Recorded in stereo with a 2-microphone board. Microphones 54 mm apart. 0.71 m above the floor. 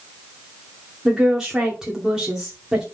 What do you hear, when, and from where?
1.1 s a woman speaking: 10° right (ahead or behind), 2 m